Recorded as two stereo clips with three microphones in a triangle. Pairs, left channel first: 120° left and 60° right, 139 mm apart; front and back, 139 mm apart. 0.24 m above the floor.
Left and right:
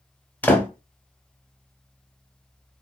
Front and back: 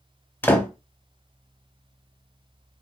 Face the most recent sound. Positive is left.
turn(degrees=55)